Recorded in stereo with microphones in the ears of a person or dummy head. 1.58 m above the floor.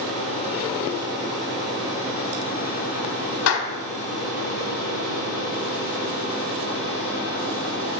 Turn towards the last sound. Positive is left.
turn(degrees=70)  # may be behind; listen again after turning